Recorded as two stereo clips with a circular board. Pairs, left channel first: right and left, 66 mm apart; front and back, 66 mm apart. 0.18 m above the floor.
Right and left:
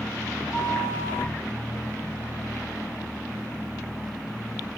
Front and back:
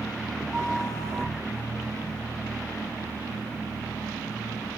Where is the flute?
135° left, 3 m.